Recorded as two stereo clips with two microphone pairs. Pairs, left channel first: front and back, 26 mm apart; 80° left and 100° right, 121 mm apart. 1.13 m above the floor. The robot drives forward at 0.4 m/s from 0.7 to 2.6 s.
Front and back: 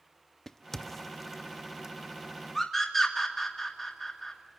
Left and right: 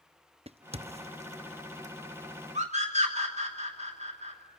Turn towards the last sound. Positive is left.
turn(degrees=-75)